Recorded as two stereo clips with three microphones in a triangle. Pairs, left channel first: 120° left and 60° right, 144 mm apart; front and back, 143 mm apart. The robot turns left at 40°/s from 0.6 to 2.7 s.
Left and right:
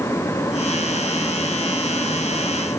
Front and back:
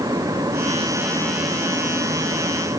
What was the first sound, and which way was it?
Only background noise.